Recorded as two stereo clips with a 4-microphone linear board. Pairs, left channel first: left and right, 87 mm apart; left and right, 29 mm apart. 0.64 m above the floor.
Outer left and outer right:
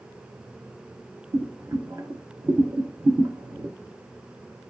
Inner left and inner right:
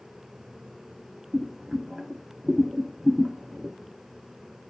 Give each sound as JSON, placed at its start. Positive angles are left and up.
{"t": 1.3, "sound": "boiling", "side_deg": -40, "distance_m": 0.5}